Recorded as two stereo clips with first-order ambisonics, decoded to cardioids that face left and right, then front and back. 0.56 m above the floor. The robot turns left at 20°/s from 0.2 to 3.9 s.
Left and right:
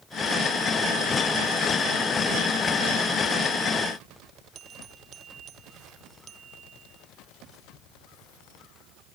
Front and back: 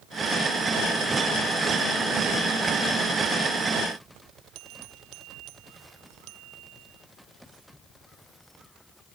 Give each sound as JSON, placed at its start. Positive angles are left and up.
{"t": 4.5, "sound": "a bell", "azimuth_deg": -150}